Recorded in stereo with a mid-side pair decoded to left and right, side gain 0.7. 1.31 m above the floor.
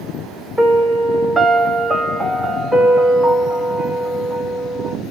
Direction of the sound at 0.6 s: 15° right.